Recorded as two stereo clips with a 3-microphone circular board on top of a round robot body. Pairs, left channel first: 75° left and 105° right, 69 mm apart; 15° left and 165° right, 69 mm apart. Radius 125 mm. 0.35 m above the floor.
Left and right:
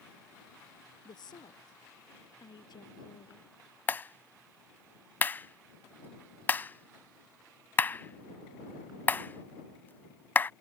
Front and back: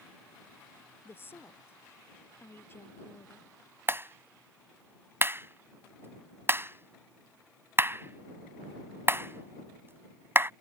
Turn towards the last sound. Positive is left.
turn(degrees=140)